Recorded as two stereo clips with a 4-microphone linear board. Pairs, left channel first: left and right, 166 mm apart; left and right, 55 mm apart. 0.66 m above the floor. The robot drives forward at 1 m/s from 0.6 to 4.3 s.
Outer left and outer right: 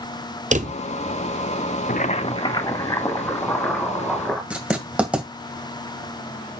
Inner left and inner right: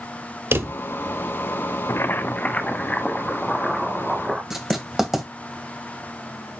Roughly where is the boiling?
Left.